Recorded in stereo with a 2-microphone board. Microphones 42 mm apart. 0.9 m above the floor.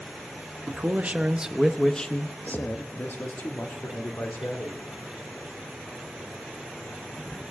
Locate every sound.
0.7 s a man speaking: 45° right (ahead or behind), 1.2 m; by 4.9 s 80° left, 2.5 m